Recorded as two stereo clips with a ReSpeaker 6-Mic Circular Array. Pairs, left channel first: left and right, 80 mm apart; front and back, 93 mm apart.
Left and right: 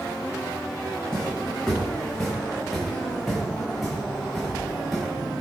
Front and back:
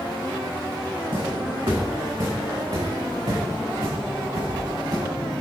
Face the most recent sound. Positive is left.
turn(degrees=180)